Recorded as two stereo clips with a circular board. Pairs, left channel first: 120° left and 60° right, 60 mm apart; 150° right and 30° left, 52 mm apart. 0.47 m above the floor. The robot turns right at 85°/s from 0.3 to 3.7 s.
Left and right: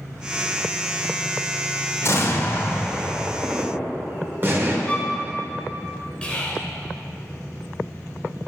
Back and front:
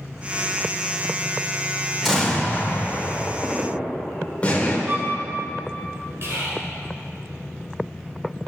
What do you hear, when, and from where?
2.0 s an explosion: 120° left, 2.0 m; by 4.8 s 95° right, 2.0 m
4.9 s a violin: 55° left, 2.0 m
6.2 s whispering: 50° left, 2.5 m